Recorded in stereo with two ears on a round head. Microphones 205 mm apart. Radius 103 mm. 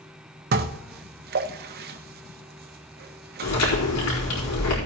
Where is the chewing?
85° left, 4.5 m.